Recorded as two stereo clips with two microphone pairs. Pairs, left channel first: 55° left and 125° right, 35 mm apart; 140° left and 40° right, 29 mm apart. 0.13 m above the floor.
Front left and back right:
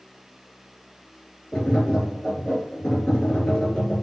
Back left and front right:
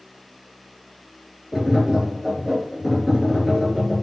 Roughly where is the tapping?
Ahead.